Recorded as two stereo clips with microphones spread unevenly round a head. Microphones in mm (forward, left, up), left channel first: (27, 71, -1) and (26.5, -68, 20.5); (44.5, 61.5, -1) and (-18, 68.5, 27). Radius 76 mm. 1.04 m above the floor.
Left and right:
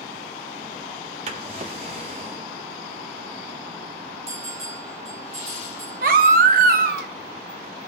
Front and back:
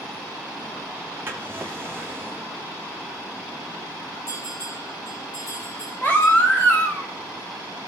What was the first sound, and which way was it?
A drawer, 135° right.